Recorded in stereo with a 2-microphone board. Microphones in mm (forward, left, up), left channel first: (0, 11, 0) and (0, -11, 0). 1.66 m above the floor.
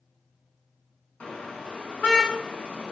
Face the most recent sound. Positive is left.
turn(degrees=80)